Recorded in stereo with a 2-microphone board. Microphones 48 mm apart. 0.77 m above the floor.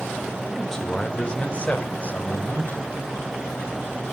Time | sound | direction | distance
0.5 | a man speaking | 5° left (ahead or behind) | 2 m